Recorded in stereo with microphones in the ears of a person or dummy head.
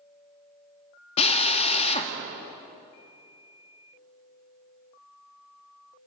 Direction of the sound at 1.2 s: 35° left (ahead or behind).